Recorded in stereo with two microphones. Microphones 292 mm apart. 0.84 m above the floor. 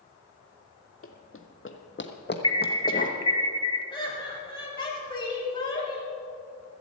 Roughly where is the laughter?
Centre.